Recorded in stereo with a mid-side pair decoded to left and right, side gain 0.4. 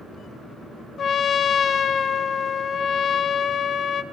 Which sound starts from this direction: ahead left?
A trumpet, at 1.0 s.